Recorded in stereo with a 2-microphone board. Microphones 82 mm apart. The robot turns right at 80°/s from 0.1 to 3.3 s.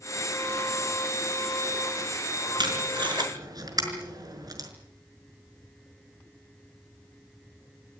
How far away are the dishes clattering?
I don't hear dishes clattering.